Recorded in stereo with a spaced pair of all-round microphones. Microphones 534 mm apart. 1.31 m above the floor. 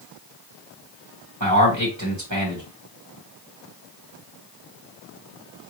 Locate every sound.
1.4 s a man speaking: 30° right (ahead or behind), 2 m